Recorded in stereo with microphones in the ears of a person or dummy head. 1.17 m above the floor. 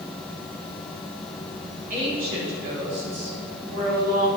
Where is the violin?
I don't hear a violin.